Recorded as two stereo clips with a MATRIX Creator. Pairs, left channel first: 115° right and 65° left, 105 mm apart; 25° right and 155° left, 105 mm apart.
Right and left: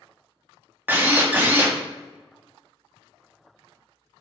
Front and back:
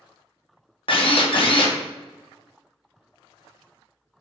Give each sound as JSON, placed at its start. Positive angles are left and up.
{"t": 0.9, "sound": "a drill", "azimuth_deg": 0, "distance_m": 0.6}